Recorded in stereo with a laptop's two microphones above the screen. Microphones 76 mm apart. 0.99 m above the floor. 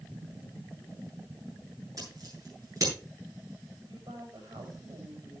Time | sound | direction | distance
2.0 | scissors | 50° right (ahead or behind) | 9 m
3.8 | a woman speaking | 80° right | 5.5 m